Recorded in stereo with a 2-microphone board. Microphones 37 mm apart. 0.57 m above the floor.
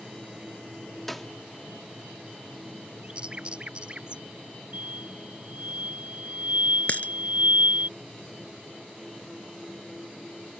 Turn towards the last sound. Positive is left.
turn(degrees=50)  # may be behind; listen again after turning